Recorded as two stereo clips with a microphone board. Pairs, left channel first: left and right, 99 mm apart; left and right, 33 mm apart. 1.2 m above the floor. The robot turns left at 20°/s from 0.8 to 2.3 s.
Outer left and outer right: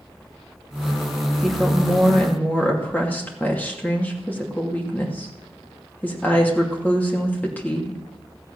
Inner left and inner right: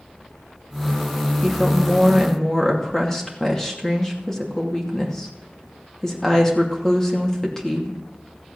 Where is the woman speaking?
Centre (ahead or behind), 2.5 m; by 8.0 s 15° left (ahead or behind), 2.5 m.